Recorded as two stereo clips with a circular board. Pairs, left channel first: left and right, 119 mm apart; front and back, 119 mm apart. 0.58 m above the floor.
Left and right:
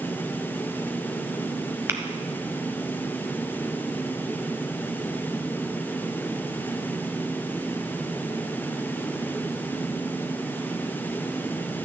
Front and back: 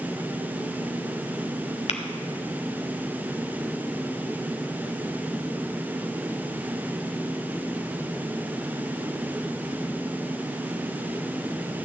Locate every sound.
1.9 s tapping: 20° right, 0.9 m